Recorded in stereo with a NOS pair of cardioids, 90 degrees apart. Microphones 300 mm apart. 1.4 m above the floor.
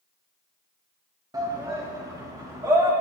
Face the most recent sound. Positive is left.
turn(degrees=-10)